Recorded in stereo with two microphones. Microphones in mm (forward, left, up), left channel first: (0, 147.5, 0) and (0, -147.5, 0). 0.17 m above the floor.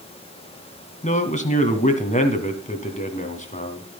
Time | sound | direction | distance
1.0 | a man speaking | 25° left (ahead or behind) | 1.7 m